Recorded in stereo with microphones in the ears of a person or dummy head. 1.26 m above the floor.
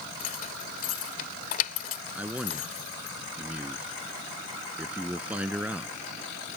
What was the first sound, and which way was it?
Keys jangling, 50° left (ahead or behind).